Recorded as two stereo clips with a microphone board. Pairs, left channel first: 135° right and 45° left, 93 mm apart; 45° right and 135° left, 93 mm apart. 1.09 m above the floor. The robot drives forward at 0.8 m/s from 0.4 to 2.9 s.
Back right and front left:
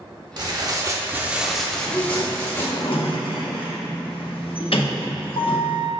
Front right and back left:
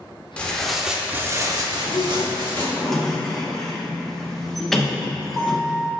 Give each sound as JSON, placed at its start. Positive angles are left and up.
{"t": 0.4, "sound": "tearing paper", "azimuth_deg": 30, "distance_m": 0.9}
{"t": 1.7, "sound": "a sliding door", "azimuth_deg": -55, "distance_m": 0.8}